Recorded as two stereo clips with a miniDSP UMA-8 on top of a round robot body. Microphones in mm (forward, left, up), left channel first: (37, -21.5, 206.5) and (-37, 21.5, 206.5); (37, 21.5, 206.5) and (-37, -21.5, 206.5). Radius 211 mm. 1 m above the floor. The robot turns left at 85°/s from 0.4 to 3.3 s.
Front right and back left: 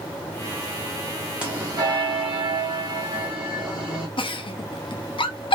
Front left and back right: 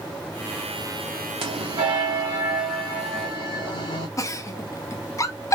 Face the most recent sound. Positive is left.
turn(degrees=-20)